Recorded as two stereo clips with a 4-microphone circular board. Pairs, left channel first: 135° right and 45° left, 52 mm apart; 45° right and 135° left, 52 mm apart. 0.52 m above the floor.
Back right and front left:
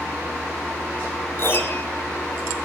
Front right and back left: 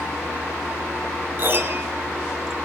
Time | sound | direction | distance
1.4 | a piano | 175° right | 1.9 m